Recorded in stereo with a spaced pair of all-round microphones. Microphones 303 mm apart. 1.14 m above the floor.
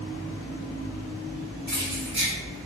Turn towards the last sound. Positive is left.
turn(degrees=-25)  # may be behind; listen again after turning